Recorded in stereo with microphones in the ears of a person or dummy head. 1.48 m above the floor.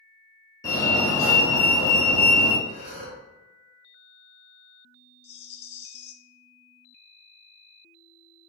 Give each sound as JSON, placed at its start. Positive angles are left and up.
{"t": 0.6, "sound": "a fire alarm", "side_deg": 20, "distance_m": 1.2}
{"t": 2.6, "sound": "breathing", "side_deg": -35, "distance_m": 1.4}
{"t": 5.2, "sound": "a rattle", "side_deg": 35, "distance_m": 0.6}